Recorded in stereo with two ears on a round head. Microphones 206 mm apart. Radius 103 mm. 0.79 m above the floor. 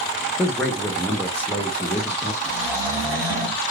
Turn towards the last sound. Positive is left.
turn(degrees=-15)  # may be behind; listen again after turning